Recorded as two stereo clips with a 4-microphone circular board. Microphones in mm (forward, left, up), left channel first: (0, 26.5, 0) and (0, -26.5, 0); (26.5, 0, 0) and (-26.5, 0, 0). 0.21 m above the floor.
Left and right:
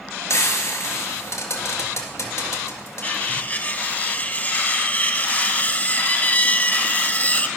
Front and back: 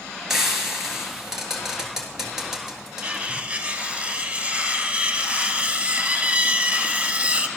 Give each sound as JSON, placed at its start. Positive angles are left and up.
{"t": 0.3, "sound": "frying", "azimuth_deg": 100, "distance_m": 2.0}
{"t": 3.0, "sound": "cutlery clinking", "azimuth_deg": 125, "distance_m": 0.7}